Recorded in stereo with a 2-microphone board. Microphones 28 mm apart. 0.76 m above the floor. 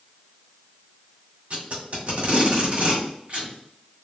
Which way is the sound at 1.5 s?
55° right (ahead or behind).